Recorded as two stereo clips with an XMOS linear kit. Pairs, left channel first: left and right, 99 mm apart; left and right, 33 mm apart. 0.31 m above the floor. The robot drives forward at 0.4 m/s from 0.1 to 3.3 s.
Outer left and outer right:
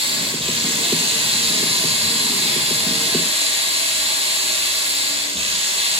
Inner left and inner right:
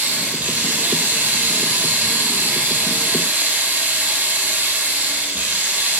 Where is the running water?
70° right (ahead or behind), 2.5 m; by 6.0 s 80° right, 2.5 m.